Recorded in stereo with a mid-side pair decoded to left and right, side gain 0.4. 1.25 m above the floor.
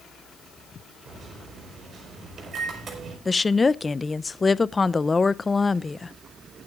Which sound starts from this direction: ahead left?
A woman speaking, at 3.2 s.